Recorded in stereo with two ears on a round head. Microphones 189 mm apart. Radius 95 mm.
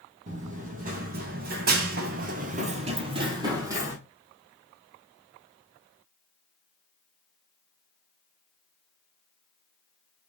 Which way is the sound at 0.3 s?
35° right (ahead or behind).